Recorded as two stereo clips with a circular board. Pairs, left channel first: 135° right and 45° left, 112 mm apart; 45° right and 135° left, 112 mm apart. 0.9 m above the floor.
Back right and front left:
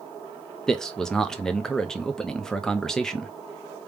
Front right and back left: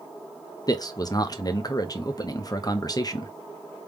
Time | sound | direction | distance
0.7 | a man speaking | 55° right | 0.6 m